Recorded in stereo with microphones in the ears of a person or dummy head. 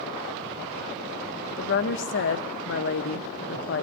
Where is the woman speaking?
50° left (ahead or behind), 0.8 m.